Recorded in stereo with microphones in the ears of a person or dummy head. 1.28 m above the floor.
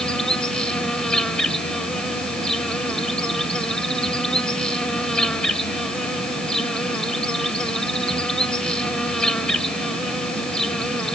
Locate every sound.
0.0 s an insect: 5° left (ahead or behind)